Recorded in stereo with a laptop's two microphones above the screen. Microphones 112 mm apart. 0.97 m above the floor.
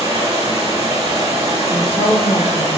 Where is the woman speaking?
50° left (ahead or behind), 0.9 m.